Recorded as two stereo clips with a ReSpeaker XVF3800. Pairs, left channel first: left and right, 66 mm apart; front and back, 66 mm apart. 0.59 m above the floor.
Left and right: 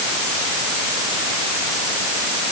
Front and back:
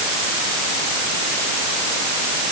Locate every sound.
Only background noise.